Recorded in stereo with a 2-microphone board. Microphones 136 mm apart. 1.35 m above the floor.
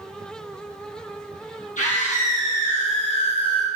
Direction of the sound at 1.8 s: 65° left (ahead or behind).